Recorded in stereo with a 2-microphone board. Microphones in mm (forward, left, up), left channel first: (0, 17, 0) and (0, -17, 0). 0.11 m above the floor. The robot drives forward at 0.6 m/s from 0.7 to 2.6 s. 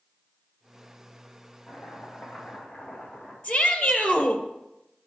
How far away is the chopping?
About 6.5 m.